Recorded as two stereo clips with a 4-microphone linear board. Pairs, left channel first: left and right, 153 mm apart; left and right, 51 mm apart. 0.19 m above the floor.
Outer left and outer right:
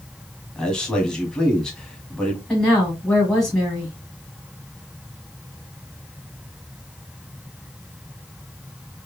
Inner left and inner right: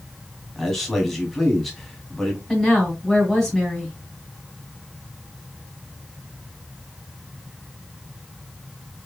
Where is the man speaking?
5° left (ahead or behind), 1.4 m.